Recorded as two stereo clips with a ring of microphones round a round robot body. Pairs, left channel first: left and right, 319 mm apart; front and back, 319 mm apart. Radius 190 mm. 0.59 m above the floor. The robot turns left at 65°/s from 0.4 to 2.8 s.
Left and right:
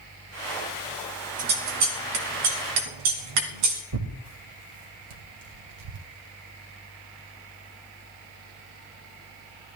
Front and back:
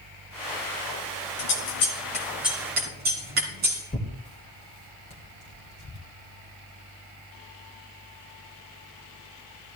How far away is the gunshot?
I don't hear a gunshot.